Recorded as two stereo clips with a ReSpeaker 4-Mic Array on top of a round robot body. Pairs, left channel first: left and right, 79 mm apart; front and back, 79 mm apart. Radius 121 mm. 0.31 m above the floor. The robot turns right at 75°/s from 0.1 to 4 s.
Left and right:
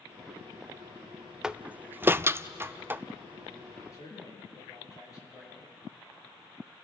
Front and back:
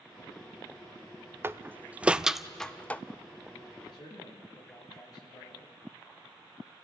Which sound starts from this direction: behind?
A door slam, at 1.4 s.